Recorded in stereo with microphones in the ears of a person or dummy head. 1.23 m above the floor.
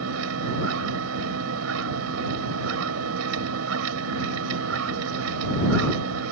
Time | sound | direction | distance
0.0 | a machine running | 85° right | ?